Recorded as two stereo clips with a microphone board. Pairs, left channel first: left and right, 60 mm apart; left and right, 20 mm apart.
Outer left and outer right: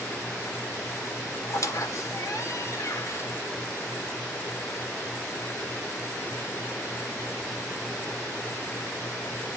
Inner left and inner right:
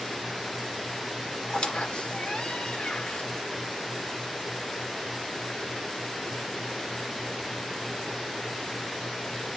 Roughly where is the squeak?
Left.